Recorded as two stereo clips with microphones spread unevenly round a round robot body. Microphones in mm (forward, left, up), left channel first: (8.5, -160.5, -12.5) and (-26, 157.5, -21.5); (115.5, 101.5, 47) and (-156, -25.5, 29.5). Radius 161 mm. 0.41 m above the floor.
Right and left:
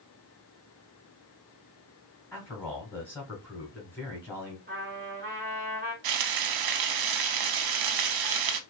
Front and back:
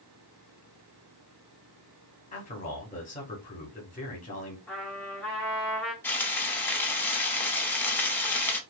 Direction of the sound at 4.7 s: 110° left.